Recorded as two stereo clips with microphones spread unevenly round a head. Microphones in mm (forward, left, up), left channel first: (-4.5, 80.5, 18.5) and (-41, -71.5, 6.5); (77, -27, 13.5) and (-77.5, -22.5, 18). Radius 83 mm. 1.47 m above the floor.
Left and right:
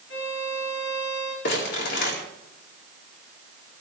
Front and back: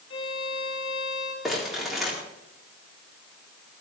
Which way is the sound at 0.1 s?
55° left.